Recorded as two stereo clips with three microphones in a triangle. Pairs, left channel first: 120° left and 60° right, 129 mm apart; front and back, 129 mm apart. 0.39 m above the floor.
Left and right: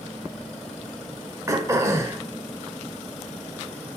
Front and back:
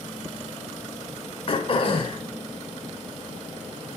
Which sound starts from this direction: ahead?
Throat clearing, at 1.5 s.